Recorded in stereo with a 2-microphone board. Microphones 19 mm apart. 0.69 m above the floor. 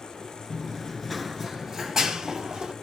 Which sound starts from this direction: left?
Running footsteps, at 0.5 s.